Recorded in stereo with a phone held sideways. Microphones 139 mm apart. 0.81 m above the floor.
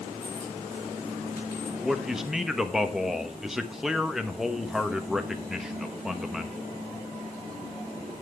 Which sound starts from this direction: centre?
A man speaking, at 1.8 s.